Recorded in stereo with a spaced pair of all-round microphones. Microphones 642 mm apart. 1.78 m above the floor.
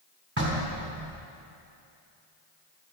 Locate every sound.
0.4 s knocking: 20° right (ahead or behind), 4.5 m